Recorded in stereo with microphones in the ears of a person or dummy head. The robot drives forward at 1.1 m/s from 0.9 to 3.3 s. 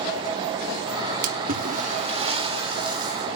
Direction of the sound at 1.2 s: 55° right (ahead or behind).